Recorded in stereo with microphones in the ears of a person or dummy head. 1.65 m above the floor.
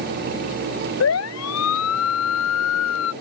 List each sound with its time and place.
1.0 s a siren: 80° left; by 3.1 s 75° left (ahead or behind)